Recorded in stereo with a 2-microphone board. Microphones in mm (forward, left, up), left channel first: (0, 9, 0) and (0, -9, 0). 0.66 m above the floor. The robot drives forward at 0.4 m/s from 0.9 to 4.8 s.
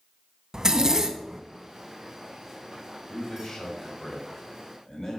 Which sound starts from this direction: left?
A man speaking, at 3.1 s.